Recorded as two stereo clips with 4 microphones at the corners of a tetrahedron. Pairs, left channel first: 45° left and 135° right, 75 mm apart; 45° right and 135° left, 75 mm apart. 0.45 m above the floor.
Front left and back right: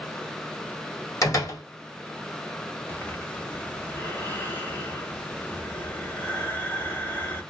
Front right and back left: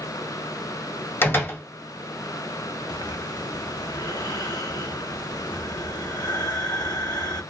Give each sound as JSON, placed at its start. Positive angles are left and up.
{"t": 1.2, "sound": "a door slam", "azimuth_deg": 10, "distance_m": 1.5}
{"t": 2.9, "sound": "breathing", "azimuth_deg": -20, "distance_m": 0.9}